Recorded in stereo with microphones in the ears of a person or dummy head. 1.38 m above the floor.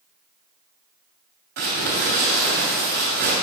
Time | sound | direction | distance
1.6 | crumpling | 50° right (ahead or behind) | 1.8 m